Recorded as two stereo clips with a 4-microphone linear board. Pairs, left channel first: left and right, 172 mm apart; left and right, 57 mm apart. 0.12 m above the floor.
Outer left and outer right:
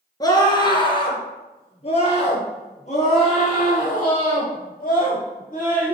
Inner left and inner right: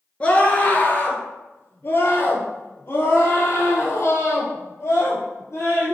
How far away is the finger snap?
No finger snap in this recording.